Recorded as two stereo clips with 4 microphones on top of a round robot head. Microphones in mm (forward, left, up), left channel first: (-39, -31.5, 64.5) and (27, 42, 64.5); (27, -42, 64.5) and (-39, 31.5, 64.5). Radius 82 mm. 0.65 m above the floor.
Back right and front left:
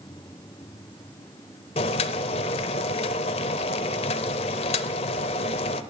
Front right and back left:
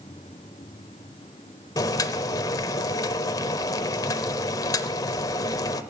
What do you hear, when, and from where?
1.8 s boiling: 105° right, 0.6 m